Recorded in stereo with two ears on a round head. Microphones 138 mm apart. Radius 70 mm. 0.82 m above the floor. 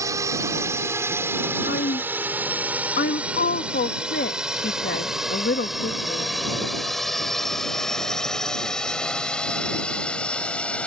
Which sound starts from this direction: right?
A drone, at 0.0 s.